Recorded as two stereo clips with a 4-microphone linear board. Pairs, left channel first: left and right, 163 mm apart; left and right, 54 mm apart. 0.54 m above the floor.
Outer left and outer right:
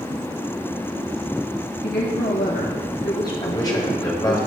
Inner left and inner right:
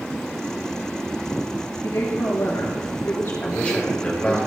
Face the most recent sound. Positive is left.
turn(degrees=25)  # may be behind; listen again after turning